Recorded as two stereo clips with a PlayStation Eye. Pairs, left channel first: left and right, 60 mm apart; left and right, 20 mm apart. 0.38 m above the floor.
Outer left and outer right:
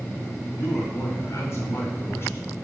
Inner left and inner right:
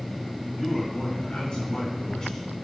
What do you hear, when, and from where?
0.6 s a man speaking: 65° left (ahead or behind), 3.5 m; by 2.5 s 40° left (ahead or behind), 3.5 m